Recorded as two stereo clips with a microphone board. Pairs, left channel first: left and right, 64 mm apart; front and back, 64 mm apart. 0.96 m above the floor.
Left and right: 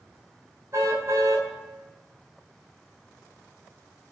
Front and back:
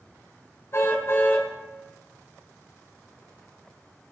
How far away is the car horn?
About 4.5 m.